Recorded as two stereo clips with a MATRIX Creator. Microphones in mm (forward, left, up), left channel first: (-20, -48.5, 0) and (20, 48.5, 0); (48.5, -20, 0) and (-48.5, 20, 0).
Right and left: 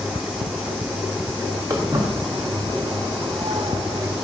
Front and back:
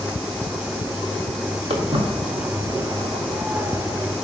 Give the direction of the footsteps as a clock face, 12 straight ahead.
8 o'clock.